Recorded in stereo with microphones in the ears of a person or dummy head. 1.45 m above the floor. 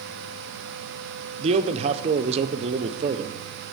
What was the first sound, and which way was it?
A man speaking, 35° right (ahead or behind).